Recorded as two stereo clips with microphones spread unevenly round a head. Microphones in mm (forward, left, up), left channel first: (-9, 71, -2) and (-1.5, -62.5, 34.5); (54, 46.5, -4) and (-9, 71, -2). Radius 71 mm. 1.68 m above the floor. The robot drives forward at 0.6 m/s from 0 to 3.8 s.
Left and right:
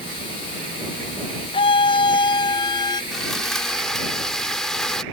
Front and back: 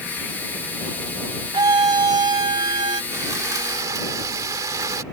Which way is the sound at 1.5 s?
145° left.